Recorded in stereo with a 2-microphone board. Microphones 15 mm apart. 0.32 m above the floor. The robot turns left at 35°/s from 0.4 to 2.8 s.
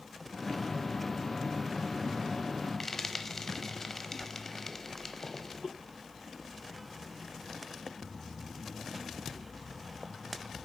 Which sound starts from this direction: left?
Frying, at 2.8 s.